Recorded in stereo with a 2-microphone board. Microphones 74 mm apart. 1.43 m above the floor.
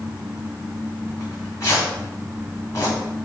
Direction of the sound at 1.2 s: 40° left (ahead or behind).